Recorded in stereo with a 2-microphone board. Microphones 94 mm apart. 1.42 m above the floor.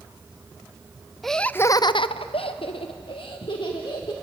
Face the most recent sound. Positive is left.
turn(degrees=55)  # may be behind; listen again after turning